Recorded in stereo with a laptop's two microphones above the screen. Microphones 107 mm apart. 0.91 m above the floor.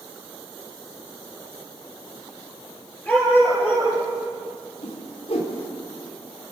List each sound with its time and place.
3.1 s a dog barking: 15° left (ahead or behind), 5.5 m
4.8 s a whoosh: 75° left (ahead or behind), 3 m